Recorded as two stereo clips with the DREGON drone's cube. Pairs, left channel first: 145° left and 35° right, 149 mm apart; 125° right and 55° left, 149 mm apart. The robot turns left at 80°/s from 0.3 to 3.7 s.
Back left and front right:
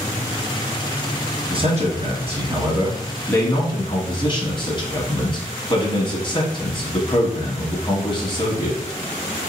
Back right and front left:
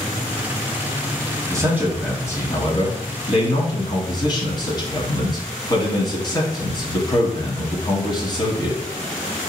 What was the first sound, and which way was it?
A man speaking, 5° left.